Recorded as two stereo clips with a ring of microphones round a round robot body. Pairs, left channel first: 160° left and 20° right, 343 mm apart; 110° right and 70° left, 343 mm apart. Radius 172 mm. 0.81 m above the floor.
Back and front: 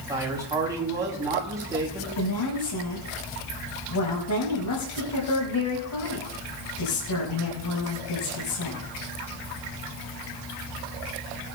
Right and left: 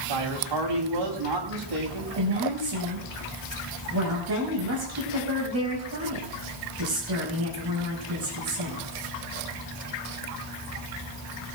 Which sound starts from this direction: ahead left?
A man speaking, at 0.1 s.